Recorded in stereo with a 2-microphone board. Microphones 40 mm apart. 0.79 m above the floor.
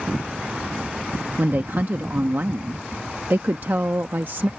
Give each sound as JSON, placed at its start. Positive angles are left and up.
{"t": 1.4, "sound": "a woman speaking", "side_deg": -55}